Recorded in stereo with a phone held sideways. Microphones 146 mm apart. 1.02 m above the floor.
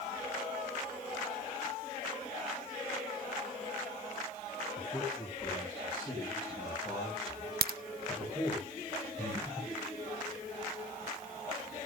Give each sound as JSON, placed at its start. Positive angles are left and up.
{"t": 4.8, "sound": "a man speaking", "side_deg": 5, "distance_m": 7.5}
{"t": 7.6, "sound": "a crack", "side_deg": -85, "distance_m": 0.5}
{"t": 9.2, "sound": "breathing", "side_deg": -30, "distance_m": 8.5}